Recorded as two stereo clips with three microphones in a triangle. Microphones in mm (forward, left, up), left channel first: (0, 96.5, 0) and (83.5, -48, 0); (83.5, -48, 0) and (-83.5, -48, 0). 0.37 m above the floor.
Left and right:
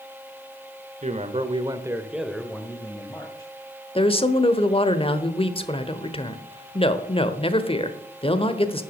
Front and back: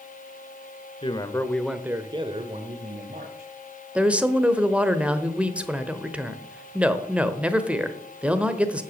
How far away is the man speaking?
About 1.1 m.